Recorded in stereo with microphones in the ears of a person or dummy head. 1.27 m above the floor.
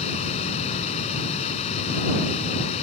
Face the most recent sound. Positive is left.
turn(degrees=35)  # may be behind; listen again after turning